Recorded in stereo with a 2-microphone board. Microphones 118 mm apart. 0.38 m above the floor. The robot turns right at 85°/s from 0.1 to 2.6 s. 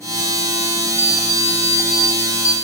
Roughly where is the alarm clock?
Ahead right.